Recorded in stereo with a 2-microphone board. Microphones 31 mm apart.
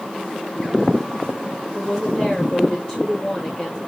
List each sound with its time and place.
1.7 s a woman speaking: 30° left (ahead or behind), 1.7 m